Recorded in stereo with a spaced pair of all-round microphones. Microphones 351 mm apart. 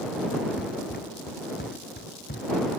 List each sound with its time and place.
0.6 s running footsteps: 25° left (ahead or behind); by 2.7 s 30° left (ahead or behind)